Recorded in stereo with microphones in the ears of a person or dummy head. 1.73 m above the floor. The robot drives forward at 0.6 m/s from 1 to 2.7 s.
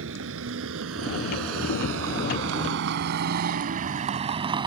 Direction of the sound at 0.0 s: 75° right (ahead or behind).